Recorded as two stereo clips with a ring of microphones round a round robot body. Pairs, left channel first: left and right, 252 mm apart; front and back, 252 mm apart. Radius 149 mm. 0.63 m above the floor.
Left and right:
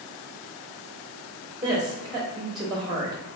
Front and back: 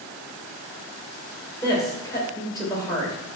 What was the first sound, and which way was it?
A woman speaking, 50° right.